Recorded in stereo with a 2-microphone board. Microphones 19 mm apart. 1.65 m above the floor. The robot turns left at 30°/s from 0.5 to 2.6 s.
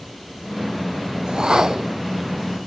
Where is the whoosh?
50° right (ahead or behind), 0.7 m; by 1.9 s 35° right (ahead or behind), 0.7 m.